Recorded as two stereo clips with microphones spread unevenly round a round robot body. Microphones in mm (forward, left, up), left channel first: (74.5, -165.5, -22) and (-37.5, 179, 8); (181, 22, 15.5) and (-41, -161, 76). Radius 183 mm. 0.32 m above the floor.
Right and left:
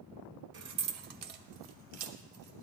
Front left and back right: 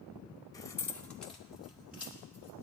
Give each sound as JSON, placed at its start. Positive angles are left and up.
{"t": 0.5, "sound": "keys jangling", "azimuth_deg": 85, "distance_m": 0.6}